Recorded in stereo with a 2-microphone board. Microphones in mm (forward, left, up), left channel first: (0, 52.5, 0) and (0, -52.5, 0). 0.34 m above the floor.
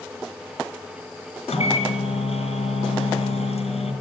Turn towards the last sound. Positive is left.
turn(degrees=75)  # may be behind; listen again after turning